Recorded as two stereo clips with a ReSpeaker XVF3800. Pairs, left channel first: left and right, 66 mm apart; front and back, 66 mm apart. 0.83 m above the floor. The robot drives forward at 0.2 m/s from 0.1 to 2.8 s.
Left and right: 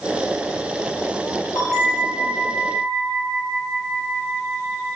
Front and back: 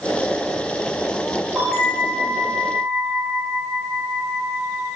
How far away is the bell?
About 0.9 m.